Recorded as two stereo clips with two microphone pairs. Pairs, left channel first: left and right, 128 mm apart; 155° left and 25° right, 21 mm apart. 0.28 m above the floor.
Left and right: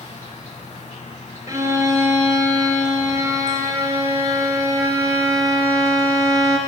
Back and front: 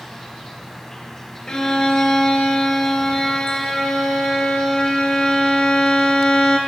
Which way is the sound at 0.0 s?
85° left.